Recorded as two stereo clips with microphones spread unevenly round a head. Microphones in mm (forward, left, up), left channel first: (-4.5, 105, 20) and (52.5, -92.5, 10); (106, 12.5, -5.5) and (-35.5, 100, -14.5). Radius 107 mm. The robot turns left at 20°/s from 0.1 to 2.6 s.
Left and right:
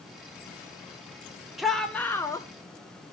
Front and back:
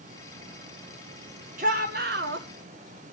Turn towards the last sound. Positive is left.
turn(degrees=180)